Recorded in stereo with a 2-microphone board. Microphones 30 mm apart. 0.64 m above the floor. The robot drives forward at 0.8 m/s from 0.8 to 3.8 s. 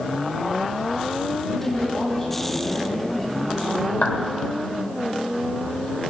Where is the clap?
65° left (ahead or behind), 1.7 m.